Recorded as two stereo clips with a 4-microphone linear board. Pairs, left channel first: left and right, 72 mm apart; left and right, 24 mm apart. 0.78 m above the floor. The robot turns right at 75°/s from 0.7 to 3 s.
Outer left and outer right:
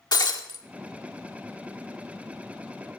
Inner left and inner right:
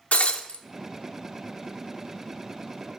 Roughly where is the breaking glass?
Left.